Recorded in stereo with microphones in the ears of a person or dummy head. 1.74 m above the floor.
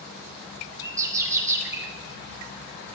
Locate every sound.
0.8 s a bird: 15° right (ahead or behind), 1.3 m